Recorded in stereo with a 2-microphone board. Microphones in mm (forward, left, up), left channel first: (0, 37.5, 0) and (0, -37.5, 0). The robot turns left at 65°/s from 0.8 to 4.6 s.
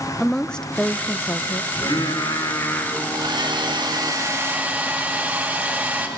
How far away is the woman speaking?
About 0.9 m.